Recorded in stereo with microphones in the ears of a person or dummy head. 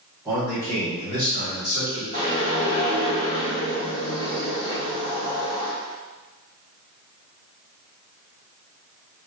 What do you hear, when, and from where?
0.2 s a man speaking: 10° right (ahead or behind), 1.0 m; by 2.0 s 50° left (ahead or behind), 1.8 m
2.1 s a whoosh: 30° left (ahead or behind), 1.2 m